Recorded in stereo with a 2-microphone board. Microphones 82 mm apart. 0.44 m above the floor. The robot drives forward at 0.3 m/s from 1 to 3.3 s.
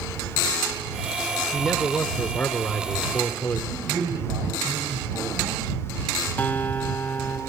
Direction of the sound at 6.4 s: 20° left (ahead or behind).